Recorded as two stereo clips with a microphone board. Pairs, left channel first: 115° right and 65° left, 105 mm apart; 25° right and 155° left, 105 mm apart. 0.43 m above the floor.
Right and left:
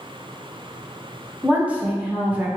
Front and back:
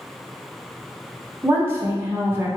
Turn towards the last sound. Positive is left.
turn(degrees=125)